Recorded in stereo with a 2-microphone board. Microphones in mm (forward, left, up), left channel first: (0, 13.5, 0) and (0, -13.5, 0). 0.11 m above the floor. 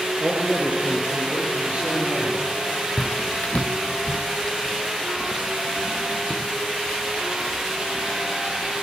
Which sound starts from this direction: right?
A man speaking, at 0.2 s.